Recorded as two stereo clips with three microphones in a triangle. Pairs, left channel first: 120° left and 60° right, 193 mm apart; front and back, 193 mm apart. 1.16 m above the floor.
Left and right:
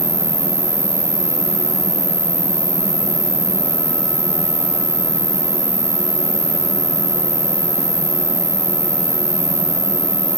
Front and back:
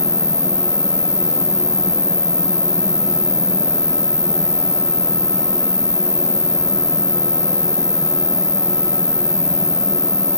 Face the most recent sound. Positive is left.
turn(degrees=75)